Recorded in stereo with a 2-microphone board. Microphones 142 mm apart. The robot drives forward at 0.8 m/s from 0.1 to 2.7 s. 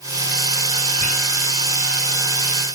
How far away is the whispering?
About 4 m.